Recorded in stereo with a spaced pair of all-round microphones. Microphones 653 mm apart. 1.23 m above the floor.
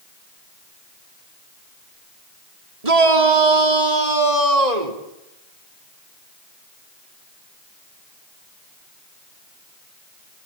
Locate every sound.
2.8 s a shout: 65° right (ahead or behind), 4 m; by 5.0 s 80° right, 4.5 m